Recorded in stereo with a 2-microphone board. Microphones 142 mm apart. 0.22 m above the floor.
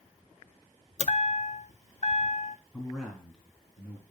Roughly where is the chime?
Left.